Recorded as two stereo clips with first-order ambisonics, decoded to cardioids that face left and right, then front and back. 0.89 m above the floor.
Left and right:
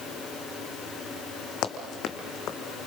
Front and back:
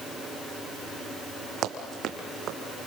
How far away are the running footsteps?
About 2 m.